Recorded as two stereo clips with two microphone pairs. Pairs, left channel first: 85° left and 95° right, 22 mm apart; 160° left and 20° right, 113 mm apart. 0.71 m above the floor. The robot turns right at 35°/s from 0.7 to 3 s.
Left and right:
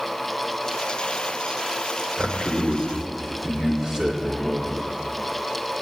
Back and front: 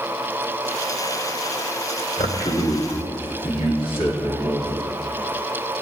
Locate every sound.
2.2 s a man speaking: 170° left, 2.5 m; by 4.8 s 160° right, 2.5 m